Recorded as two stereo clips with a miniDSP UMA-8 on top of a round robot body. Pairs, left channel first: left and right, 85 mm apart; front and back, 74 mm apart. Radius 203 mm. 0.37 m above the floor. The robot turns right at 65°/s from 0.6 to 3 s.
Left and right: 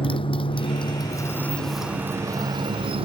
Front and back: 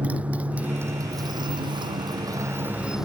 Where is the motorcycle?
105° left; by 3.0 s 95° right.